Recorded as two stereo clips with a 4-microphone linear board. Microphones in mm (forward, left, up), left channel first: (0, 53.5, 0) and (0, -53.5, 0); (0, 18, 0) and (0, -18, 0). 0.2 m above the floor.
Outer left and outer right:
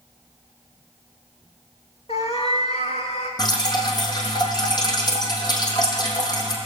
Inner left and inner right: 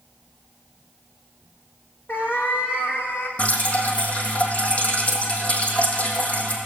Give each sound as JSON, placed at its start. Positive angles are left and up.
{"t": 2.1, "sound": "a cat meowing", "side_deg": 75, "distance_m": 2.5}
{"t": 3.4, "sound": "dripping", "side_deg": 40, "distance_m": 3.0}